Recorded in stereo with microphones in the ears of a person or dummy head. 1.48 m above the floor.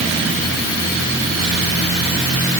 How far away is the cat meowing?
I don't hear a cat meowing.